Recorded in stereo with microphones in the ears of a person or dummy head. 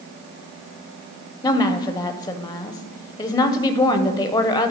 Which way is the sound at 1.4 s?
20° left (ahead or behind).